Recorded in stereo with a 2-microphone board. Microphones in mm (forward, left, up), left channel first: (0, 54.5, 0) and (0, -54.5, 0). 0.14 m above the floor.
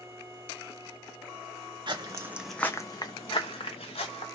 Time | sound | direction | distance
1.9 | footsteps | 45° right (ahead or behind) | 0.7 m